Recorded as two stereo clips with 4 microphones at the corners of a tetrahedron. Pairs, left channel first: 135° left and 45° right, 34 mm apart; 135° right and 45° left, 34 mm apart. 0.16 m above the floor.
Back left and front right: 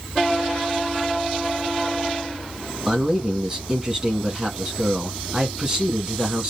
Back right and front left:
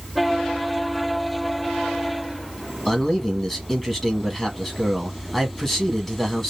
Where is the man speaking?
75° right, 1.0 m.